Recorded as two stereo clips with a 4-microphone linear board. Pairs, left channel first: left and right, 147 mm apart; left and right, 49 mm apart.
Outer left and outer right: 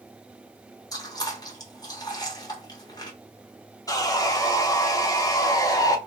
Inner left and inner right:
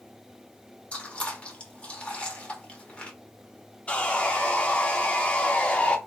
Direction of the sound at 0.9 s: 25° left (ahead or behind).